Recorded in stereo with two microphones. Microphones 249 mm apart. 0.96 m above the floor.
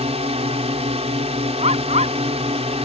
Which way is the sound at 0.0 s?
25° right (ahead or behind).